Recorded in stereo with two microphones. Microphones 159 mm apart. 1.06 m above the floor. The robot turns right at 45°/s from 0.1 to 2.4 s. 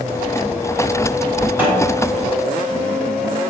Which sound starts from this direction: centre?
A snare drum, at 1.6 s.